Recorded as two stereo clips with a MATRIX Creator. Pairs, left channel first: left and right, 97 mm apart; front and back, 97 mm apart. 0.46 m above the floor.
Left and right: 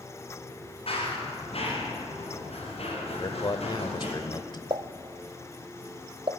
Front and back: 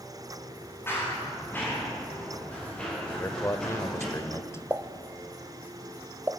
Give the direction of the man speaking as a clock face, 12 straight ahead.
10 o'clock.